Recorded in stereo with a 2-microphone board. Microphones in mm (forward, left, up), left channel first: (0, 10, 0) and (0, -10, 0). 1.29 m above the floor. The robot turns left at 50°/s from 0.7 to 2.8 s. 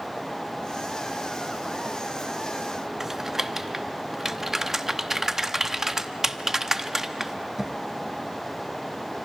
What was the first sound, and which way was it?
Typing on a keyboard, 30° right (ahead or behind).